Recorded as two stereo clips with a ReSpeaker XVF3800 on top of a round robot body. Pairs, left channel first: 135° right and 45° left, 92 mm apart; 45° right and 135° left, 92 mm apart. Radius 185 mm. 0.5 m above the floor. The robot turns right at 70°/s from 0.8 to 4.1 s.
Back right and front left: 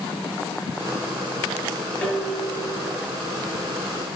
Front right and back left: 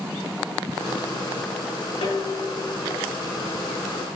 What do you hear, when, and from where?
2.0 s dishes clattering: 65° right, 6.5 m; by 3.0 s 5° left, 6.5 m